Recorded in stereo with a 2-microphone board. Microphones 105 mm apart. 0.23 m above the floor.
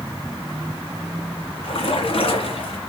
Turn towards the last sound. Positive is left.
turn(degrees=60)  # may be behind; listen again after turning